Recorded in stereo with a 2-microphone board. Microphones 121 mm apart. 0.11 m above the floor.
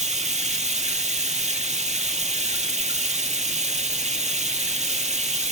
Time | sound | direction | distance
0.0 | running water | 70° right (ahead or behind) | 0.9 m